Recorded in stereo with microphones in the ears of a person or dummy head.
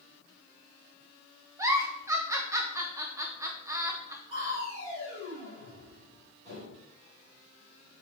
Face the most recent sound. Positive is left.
turn(degrees=-35)  # may be behind; listen again after turning